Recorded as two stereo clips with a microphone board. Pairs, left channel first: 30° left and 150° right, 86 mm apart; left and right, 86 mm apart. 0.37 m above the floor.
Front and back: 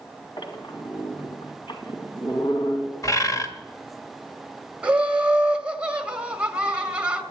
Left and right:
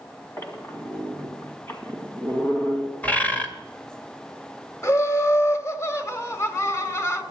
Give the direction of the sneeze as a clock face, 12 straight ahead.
No sneeze in this recording.